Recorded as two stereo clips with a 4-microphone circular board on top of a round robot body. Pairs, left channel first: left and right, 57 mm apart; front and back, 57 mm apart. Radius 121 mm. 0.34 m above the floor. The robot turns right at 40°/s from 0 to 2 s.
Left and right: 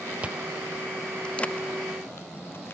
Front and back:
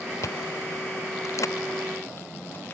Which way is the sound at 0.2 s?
25° right.